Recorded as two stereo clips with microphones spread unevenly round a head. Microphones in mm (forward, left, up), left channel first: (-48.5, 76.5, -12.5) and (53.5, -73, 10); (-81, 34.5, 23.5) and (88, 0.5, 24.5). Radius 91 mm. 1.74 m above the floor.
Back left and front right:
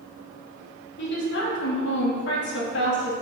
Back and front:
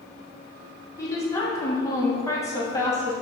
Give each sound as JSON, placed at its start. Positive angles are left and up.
{"t": 1.0, "sound": "a woman speaking", "azimuth_deg": 95, "distance_m": 2.5}